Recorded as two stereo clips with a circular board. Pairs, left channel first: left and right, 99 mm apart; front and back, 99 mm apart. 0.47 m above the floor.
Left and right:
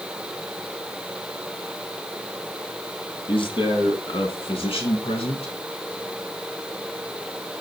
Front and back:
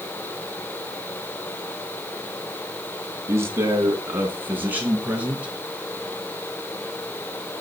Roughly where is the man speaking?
Behind left.